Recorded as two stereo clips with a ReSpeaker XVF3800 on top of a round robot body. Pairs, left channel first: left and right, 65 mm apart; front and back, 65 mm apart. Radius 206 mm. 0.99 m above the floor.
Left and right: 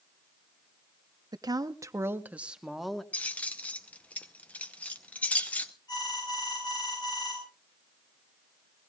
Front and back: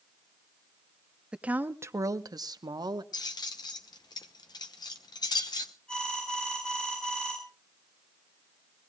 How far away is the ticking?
I don't hear ticking.